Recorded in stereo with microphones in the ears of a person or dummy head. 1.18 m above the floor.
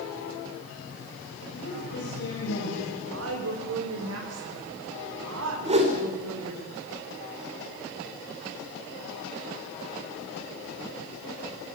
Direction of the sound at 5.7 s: 30° right (ahead or behind).